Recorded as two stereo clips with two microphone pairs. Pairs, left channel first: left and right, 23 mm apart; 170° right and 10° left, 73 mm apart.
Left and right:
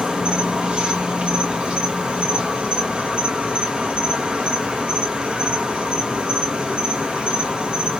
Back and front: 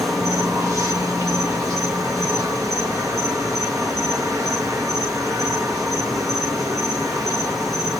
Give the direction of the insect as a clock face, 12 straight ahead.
1 o'clock.